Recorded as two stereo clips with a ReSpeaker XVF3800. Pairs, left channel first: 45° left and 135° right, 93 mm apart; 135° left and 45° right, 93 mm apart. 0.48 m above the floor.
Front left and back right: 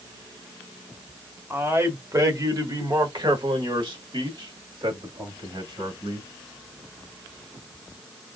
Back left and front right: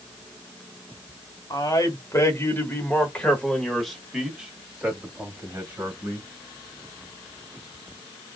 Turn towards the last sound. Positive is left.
turn(degrees=-110)